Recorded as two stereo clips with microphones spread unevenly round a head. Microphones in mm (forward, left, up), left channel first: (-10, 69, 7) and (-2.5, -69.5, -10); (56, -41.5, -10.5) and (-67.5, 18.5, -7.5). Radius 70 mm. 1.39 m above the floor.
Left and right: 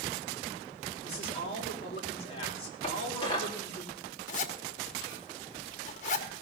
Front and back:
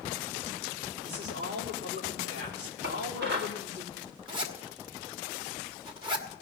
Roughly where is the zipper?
Left.